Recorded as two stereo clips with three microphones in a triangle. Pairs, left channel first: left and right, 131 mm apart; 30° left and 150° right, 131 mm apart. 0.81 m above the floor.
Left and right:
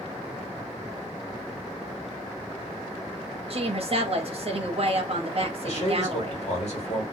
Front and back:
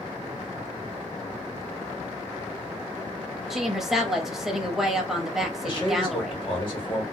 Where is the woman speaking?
60° right, 0.8 m.